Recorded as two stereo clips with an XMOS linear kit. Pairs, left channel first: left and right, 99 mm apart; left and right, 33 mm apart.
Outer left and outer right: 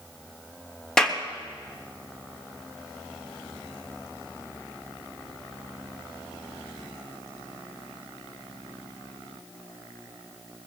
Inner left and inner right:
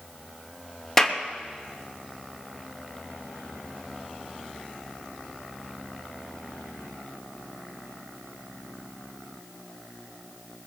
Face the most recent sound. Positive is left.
turn(degrees=10)  # may be behind; listen again after turning